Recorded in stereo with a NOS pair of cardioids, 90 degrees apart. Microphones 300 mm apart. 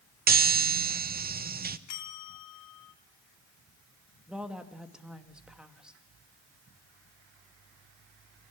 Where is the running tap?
I don't hear a running tap.